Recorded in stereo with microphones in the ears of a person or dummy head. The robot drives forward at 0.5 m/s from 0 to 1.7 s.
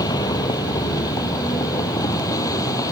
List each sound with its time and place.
0.0 s a vehicle: 25° left (ahead or behind); by 2.9 s 20° left (ahead or behind)